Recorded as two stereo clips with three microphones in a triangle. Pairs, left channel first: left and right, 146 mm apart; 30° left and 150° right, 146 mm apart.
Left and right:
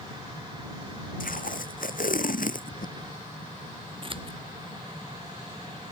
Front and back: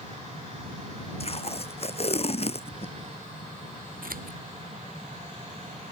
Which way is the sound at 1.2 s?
75° left.